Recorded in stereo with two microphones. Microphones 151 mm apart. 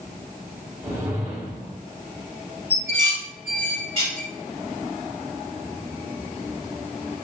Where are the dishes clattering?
40° right (ahead or behind), 1.4 m.